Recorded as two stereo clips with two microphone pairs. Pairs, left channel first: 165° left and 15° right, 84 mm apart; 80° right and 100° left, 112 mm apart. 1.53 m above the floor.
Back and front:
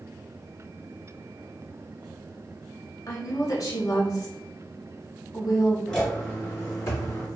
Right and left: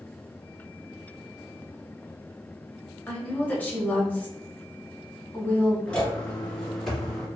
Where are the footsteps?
130° right, 1.5 m; by 7.3 s 165° right, 2.5 m.